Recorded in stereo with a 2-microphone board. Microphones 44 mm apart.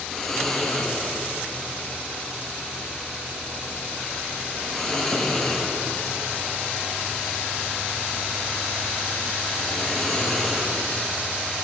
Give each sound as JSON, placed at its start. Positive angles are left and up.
{"t": 0.1, "sound": "snoring", "side_deg": 5, "distance_m": 8.5}